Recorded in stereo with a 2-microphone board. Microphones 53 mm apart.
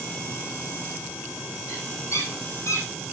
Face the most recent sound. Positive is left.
turn(degrees=70)  # may be behind; listen again after turning